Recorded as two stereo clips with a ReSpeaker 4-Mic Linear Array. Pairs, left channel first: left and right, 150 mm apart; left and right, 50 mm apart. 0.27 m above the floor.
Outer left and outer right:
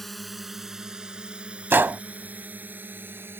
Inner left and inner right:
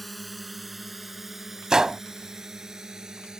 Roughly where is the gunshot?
Centre.